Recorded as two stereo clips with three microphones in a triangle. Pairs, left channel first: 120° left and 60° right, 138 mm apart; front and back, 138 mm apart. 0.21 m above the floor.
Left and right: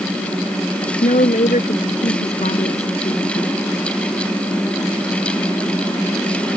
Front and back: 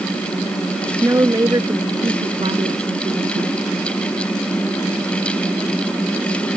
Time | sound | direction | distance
1.0 | a woman speaking | 110° left | ?